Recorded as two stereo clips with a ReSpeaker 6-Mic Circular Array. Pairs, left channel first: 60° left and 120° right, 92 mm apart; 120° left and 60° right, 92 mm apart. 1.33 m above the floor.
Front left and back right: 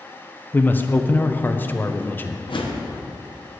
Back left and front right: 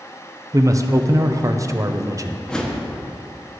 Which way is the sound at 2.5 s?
40° left.